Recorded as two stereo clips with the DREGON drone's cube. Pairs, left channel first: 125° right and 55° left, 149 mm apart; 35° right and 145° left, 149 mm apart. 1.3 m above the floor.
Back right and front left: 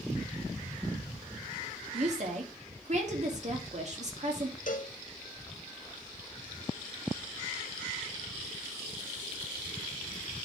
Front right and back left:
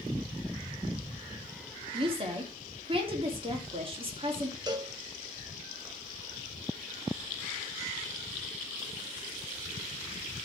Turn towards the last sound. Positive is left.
turn(degrees=-150)